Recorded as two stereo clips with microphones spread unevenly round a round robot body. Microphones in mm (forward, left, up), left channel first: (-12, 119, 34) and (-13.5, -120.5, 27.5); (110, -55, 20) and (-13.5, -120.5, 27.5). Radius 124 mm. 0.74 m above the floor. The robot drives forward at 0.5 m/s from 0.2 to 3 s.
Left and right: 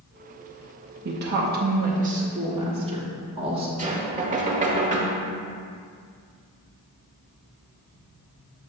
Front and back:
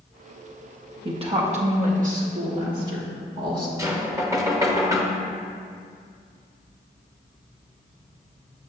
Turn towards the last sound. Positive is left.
turn(degrees=-100)